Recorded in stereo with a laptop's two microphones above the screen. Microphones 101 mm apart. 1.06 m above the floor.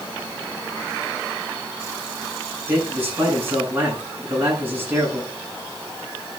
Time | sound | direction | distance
2.7 | a man speaking | 20° right (ahead or behind) | 9 m